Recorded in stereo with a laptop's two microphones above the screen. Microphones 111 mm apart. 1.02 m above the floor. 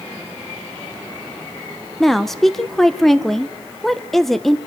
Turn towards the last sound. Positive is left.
turn(degrees=0)  # may be behind; listen again after turning